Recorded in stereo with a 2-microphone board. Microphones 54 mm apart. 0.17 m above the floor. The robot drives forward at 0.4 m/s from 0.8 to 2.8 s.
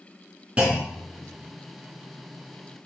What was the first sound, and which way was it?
A clunk, 20° right (ahead or behind).